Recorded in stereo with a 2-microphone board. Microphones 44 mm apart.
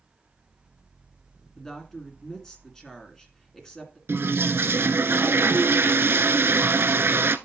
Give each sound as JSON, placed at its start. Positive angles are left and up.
{"t": 1.6, "sound": "a woman speaking", "side_deg": 15, "distance_m": 2.0}
{"t": 4.1, "sound": "a toilet flushing", "side_deg": -60, "distance_m": 0.5}